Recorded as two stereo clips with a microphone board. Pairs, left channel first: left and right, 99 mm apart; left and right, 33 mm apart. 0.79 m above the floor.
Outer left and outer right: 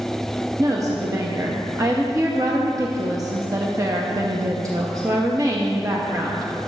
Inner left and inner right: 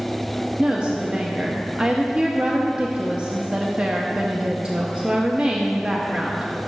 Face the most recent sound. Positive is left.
turn(degrees=-30)  # may be behind; listen again after turning